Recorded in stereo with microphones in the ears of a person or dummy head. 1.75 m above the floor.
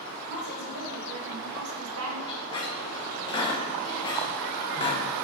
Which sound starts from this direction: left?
A squeak, at 2.3 s.